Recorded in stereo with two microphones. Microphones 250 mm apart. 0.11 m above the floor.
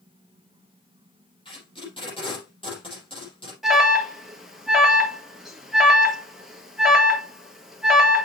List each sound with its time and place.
1.4 s tape being pulled: 20° left (ahead or behind), 4 m
3.6 s an alarm: centre (ahead or behind), 1.3 m